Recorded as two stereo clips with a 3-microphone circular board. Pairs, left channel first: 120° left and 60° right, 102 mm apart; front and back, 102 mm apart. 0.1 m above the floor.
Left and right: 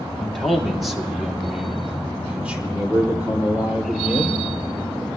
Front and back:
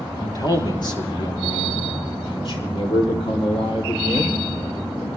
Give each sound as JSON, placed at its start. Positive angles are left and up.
{"t": 0.2, "sound": "a man speaking", "azimuth_deg": 35, "distance_m": 2.5}